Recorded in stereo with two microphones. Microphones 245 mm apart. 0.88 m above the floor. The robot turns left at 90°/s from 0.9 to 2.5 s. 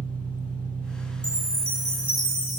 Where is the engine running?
75° right, 2 m; by 2.6 s 145° left, 2 m.